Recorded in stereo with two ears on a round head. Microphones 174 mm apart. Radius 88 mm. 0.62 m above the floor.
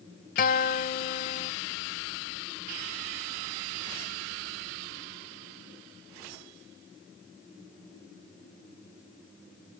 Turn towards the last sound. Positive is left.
turn(degrees=45)  # may be behind; listen again after turning